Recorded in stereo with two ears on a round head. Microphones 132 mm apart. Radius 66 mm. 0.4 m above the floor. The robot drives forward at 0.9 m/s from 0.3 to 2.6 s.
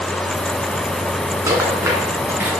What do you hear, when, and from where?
1.5 s a rattle: 25° right (ahead or behind), 2 m; by 2.6 s 15° right (ahead or behind), 3 m